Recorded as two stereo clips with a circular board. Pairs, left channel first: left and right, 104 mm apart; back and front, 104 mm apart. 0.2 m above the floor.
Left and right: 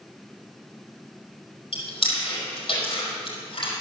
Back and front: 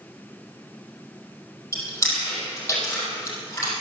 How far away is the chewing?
About 5 m.